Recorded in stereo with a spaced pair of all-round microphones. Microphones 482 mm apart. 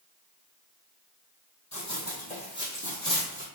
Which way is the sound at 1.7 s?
25° left (ahead or behind).